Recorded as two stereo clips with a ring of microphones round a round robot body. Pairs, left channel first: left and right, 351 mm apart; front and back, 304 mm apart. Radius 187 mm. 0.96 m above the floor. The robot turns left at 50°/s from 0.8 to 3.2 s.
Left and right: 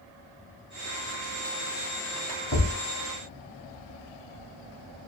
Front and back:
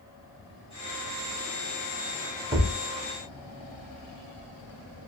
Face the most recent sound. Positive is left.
turn(degrees=80)